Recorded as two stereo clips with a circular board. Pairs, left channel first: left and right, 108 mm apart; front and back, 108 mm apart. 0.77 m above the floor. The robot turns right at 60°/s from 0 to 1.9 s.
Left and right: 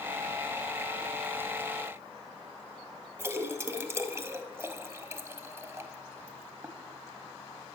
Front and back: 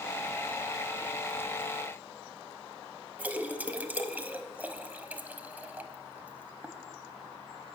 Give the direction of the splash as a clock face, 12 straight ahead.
4 o'clock.